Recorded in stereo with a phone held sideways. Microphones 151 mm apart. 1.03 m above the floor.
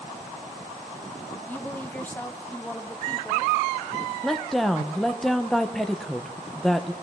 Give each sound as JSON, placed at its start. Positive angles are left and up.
{"t": 1.5, "sound": "a woman speaking", "side_deg": 10, "distance_m": 0.7}
{"t": 4.2, "sound": "a woman speaking", "side_deg": 0, "distance_m": 0.6}